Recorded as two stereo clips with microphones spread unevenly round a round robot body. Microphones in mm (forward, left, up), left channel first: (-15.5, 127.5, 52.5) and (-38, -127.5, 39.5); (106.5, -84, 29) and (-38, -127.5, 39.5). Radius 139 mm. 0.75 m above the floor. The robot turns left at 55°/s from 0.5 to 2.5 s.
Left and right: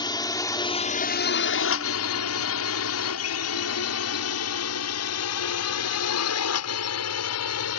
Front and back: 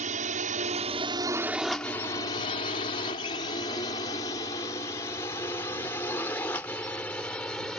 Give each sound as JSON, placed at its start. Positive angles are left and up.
{"t": 0.0, "sound": "a drone", "azimuth_deg": 155}